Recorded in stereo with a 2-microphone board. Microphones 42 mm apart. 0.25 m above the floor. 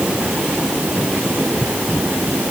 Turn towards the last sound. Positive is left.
No sound to turn to.